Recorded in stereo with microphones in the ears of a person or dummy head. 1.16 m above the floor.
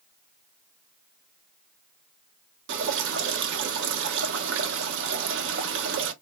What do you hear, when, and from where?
2.7 s dripping: 65° right (ahead or behind), 1.0 m